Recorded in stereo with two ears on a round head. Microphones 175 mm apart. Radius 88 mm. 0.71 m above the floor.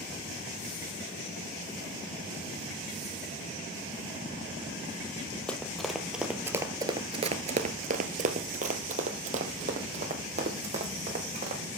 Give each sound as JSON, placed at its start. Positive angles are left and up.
{"t": 5.5, "sound": "running footsteps", "side_deg": 5, "distance_m": 1.3}